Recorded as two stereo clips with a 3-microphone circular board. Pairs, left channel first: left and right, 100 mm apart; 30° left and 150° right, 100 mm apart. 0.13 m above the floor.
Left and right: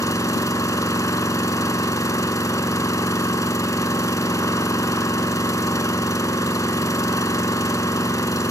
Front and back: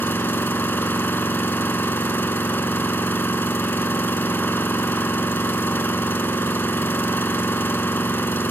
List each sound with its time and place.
0.0 s an engine running: 80° left, 0.9 m